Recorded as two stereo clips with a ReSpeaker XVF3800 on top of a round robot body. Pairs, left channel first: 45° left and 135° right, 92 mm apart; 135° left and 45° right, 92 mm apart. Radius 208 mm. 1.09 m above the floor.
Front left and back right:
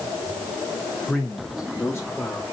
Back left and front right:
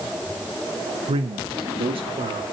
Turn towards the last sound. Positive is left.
turn(degrees=-40)